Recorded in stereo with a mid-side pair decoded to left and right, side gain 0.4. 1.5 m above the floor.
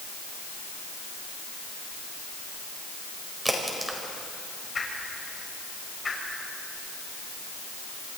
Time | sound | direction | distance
3.5 | a crack | 10° right | 5 m
4.8 | a whoosh | 30° left | 6 m